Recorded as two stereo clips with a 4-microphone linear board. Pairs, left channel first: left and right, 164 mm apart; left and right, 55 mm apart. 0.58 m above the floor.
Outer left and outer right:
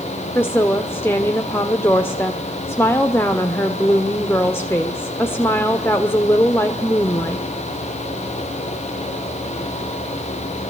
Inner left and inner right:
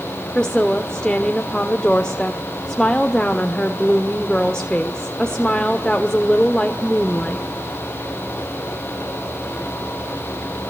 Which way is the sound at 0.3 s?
15° left (ahead or behind).